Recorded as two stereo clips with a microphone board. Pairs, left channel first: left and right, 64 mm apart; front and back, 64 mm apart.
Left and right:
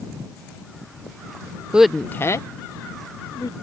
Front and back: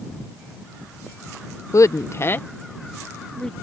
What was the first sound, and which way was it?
A woman speaking, 20° right.